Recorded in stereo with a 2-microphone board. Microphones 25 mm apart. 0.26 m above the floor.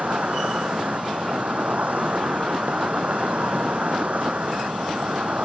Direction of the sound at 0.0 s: 75° right (ahead or behind).